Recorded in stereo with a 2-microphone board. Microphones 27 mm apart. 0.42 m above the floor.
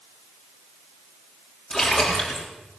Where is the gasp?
No gasp in this recording.